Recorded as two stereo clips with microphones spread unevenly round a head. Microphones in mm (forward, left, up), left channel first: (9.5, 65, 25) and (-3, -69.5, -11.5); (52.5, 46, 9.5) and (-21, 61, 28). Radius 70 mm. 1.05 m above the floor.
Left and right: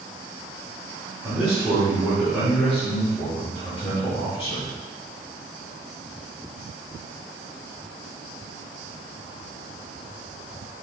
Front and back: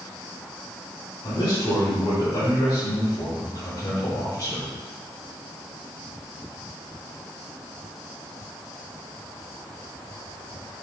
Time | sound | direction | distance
1.2 | a man speaking | 20° right | 3 m